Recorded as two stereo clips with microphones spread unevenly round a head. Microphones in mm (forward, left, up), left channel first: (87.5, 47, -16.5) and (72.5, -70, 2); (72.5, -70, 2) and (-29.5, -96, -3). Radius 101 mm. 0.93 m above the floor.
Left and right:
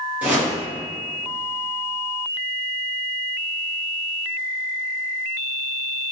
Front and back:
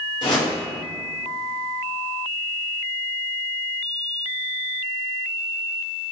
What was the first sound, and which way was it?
A whoosh, 20° right.